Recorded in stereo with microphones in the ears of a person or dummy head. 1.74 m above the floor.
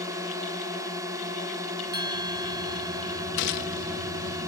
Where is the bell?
25° right (ahead or behind).